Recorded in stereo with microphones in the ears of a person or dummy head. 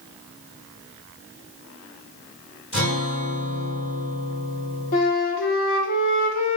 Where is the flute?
50° left (ahead or behind), 0.5 m.